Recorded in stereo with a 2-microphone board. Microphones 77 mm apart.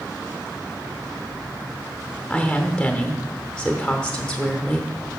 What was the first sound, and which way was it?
A woman speaking, 15° left (ahead or behind).